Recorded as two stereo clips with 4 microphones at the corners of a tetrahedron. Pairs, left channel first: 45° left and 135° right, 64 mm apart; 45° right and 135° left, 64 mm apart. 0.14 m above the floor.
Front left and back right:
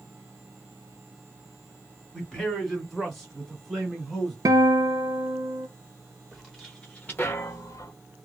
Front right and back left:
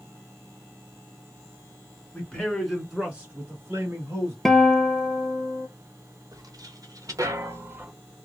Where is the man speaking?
25° right, 1.4 m; by 4.3 s 130° left, 1.9 m.